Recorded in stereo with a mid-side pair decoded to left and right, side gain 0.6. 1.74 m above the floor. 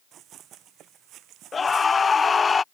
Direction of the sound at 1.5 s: 25° left.